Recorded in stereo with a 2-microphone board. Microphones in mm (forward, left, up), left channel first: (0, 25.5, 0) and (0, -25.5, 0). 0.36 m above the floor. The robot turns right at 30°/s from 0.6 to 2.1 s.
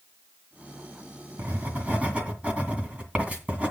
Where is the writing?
45° right (ahead or behind), 2.0 m; by 3.7 s 25° right (ahead or behind), 2.0 m.